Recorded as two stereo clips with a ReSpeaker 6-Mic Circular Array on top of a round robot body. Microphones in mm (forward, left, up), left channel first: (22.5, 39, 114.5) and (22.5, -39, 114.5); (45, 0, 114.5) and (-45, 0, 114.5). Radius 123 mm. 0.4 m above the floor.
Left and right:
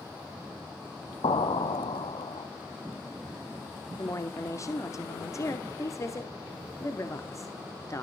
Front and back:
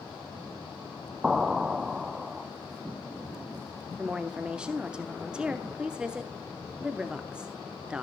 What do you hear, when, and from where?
1.2 s an explosion: 95° left, 0.6 m
4.0 s a woman speaking: 105° left, 1.1 m